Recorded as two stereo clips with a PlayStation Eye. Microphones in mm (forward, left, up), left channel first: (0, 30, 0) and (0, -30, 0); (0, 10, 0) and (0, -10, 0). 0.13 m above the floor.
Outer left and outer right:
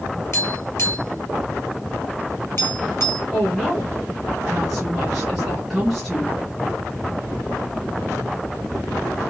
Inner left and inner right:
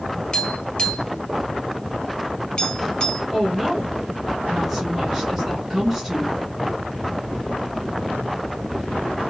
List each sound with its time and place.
0.3 s tapping: 50° left (ahead or behind), 1.4 m
3.3 s a woman speaking: centre (ahead or behind), 1.5 m